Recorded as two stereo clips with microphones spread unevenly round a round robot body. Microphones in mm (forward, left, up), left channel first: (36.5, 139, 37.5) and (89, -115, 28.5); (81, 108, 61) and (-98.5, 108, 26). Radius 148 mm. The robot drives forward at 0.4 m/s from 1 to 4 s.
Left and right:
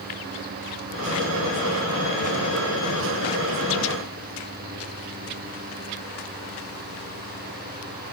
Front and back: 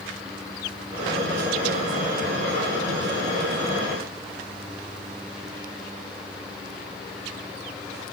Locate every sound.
Only background noise.